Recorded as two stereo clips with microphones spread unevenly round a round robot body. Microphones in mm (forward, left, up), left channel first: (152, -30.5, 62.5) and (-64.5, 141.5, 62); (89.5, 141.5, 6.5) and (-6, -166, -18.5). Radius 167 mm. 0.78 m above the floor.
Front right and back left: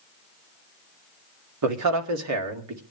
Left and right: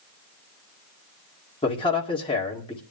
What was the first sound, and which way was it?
A man speaking, 150° left.